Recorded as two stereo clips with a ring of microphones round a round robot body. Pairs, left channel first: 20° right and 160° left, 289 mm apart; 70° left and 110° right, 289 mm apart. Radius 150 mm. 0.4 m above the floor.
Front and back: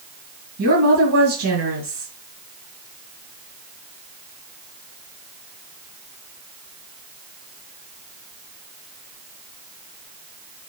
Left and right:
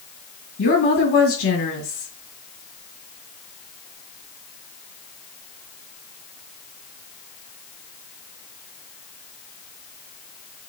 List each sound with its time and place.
0.6 s a woman speaking: 120° left, 5.5 m